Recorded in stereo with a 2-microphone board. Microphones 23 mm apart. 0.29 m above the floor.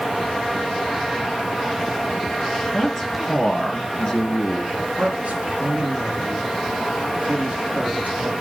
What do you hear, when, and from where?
2.7 s a man speaking: 10° left (ahead or behind), 4 m; by 4.6 s 30° left (ahead or behind), 4 m
4.7 s a man speaking: 55° right (ahead or behind), 5 m